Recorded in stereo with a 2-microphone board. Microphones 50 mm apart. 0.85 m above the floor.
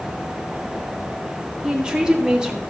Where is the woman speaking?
15° right (ahead or behind), 2.0 m.